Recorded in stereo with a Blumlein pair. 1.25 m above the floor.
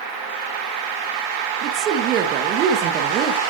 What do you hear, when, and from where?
1.6 s a woman speaking: 35° right, 1.1 m